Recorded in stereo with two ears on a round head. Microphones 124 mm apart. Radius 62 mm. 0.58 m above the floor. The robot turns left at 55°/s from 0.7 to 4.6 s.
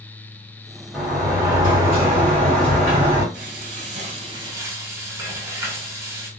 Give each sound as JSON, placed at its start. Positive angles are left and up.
{"t": 0.9, "sound": "a sliding door", "azimuth_deg": 0, "distance_m": 1.8}
{"t": 3.3, "sound": "frying", "azimuth_deg": -90, "distance_m": 1.2}